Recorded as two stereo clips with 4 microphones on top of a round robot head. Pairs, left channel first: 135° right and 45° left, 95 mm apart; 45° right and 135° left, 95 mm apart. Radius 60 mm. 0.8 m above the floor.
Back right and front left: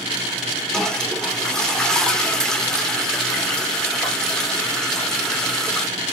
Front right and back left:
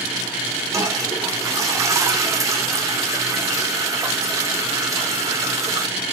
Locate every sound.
0.7 s a toilet flushing: 145° left, 1.1 m